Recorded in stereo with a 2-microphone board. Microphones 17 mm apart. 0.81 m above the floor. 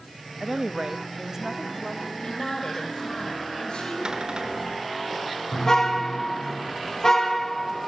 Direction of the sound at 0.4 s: 30° right (ahead or behind).